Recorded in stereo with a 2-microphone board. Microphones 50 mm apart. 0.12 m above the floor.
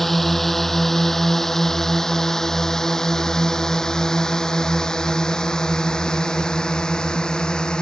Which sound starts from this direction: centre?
A drone, at 0.0 s.